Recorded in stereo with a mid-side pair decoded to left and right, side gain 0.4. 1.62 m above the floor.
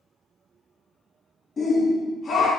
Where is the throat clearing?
I don't hear throat clearing.